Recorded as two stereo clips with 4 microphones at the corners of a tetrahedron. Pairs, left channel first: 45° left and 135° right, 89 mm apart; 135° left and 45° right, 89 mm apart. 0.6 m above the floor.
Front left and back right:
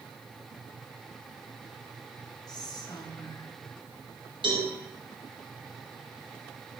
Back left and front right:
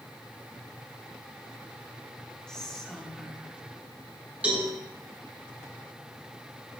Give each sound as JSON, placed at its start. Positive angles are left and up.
{"t": 2.5, "sound": "whispering", "azimuth_deg": 55, "distance_m": 1.2}
{"t": 4.4, "sound": "a cowbell", "azimuth_deg": -120, "distance_m": 3.5}